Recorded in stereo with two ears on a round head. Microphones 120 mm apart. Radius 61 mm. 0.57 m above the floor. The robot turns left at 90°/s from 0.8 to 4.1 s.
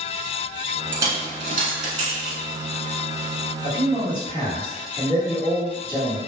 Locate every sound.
0.9 s a dropped coin: 15° right (ahead or behind), 0.9 m; by 2.4 s 25° right (ahead or behind), 0.9 m
3.6 s a man speaking: 60° left, 1.6 m; by 6.2 s 20° left, 1.6 m